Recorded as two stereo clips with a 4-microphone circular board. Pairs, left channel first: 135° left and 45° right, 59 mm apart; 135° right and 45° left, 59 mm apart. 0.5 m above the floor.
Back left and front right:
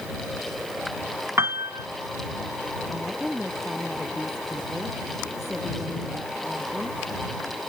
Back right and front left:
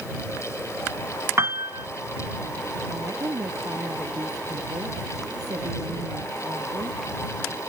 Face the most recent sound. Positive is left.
turn(degrees=45)